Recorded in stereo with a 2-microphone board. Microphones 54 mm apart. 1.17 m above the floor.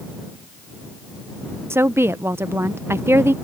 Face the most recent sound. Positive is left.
turn(degrees=-55)  # may be behind; listen again after turning